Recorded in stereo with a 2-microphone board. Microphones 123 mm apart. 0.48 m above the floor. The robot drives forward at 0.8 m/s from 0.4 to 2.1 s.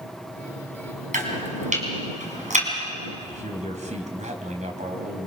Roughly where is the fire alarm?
I don't hear a fire alarm.